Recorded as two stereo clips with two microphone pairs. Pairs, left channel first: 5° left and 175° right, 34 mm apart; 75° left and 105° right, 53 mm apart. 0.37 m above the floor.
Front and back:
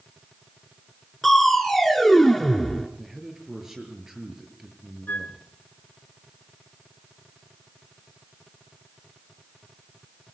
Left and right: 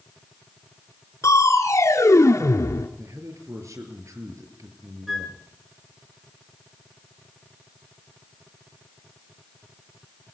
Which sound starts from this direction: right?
A man speaking, at 3.0 s.